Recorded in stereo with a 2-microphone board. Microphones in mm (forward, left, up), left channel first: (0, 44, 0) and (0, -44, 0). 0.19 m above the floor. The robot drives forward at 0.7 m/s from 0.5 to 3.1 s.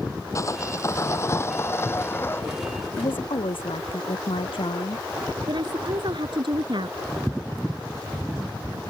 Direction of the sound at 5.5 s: 65° right (ahead or behind).